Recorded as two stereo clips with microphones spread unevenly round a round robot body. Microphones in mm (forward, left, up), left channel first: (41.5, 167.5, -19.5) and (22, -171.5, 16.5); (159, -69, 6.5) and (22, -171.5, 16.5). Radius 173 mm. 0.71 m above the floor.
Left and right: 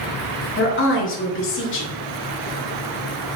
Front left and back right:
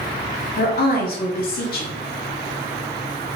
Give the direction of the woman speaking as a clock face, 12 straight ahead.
11 o'clock.